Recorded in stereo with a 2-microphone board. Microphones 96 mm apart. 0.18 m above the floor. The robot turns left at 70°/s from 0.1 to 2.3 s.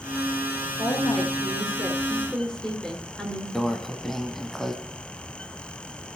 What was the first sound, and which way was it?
A woman speaking, 115° left.